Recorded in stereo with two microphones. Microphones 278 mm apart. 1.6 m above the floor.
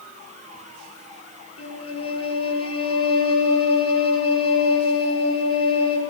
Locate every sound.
1.6 s a violin: 55° left (ahead or behind), 5.5 m